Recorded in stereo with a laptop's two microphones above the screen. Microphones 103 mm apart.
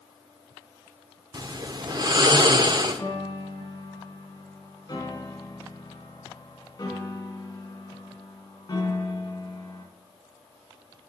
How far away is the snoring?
About 0.7 m.